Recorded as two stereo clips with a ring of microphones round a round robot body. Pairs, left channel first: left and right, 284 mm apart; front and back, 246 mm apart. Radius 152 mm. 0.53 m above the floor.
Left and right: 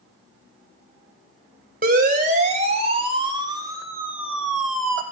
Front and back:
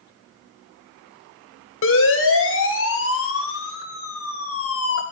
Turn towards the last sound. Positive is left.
turn(degrees=5)